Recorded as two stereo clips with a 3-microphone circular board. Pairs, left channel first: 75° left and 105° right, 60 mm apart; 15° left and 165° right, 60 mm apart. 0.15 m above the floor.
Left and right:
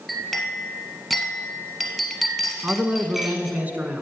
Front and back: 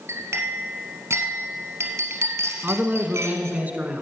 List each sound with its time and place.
0.1 s a clink: 165° left, 1.8 m
2.6 s a man speaking: 135° right, 1.1 m